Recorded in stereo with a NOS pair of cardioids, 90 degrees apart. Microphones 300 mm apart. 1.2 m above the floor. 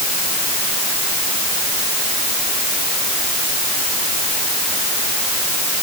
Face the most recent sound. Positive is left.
No sound to turn to.